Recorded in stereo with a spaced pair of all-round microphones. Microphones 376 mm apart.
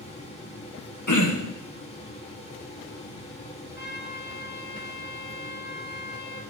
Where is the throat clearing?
50° left (ahead or behind), 1.1 m.